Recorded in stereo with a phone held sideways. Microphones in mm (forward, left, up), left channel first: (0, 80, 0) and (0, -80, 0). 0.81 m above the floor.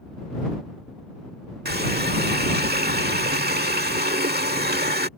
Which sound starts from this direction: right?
A running tap, at 1.6 s.